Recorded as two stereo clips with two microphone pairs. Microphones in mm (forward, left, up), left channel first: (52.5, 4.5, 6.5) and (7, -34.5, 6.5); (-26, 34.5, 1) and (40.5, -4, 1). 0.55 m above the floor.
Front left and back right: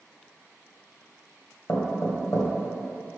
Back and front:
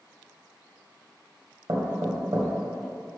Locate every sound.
1.7 s knocking: 5° left, 1.6 m